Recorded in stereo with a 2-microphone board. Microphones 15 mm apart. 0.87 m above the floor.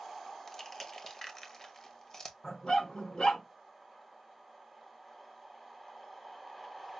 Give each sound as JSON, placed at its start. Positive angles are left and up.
{"t": 0.5, "sound": "crushing", "side_deg": 30, "distance_m": 0.8}
{"t": 2.4, "sound": "a dog barking", "side_deg": 60, "distance_m": 3.5}